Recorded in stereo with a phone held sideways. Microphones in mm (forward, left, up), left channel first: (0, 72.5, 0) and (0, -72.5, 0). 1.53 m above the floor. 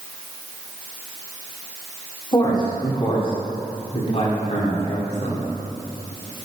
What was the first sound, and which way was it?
A man speaking, 30° left (ahead or behind).